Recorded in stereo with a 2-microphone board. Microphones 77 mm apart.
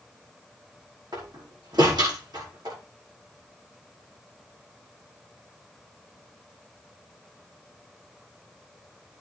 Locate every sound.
1.1 s a door slam: 65° right (ahead or behind), 5 m